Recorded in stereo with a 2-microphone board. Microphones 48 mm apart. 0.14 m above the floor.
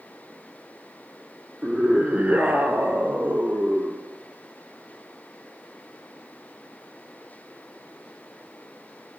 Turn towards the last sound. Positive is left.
turn(degrees=-40)  # may be behind; listen again after turning